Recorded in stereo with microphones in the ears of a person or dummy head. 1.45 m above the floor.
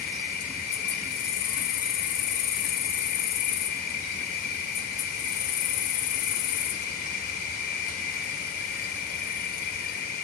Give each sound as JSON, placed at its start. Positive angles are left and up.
{"t": 0.0, "sound": "an insect", "side_deg": 55, "distance_m": 0.7}